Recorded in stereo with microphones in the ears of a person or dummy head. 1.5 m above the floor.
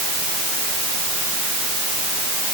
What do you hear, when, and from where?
Only background noise.